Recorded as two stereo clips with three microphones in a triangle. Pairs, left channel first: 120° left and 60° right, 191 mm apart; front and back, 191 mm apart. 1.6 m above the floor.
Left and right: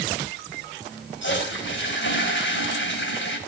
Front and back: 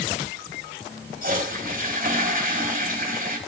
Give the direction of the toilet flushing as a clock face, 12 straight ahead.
7 o'clock.